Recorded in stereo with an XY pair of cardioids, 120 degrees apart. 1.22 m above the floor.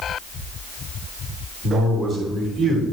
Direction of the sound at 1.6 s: 65° right.